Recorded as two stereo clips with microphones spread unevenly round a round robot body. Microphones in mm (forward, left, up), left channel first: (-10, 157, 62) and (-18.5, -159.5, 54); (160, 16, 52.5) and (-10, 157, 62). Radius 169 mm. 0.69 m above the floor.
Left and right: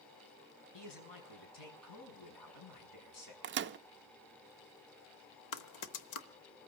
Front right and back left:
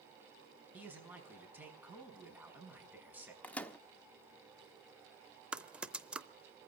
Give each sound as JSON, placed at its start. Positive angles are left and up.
{"t": 0.7, "sound": "a man speaking", "azimuth_deg": 60, "distance_m": 5.5}
{"t": 3.4, "sound": "a microwave", "azimuth_deg": -115, "distance_m": 0.5}
{"t": 5.5, "sound": "typing on a keyboard", "azimuth_deg": 55, "distance_m": 0.9}